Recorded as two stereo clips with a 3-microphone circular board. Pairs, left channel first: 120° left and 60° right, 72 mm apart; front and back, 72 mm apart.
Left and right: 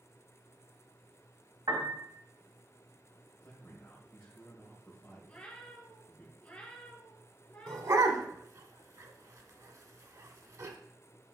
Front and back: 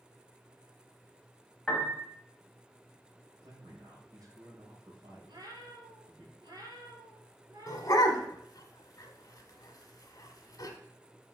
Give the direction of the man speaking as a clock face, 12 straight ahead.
6 o'clock.